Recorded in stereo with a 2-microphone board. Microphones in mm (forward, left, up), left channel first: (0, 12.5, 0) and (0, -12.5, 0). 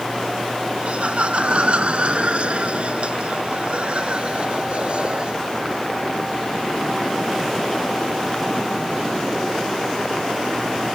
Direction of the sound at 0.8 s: 55° right (ahead or behind).